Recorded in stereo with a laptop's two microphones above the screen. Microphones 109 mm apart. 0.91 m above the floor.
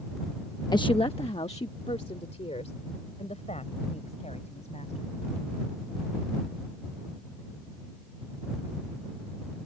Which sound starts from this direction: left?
A woman speaking, at 0.7 s.